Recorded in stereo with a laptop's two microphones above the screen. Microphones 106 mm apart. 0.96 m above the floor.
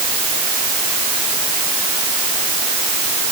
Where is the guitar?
I don't hear a guitar.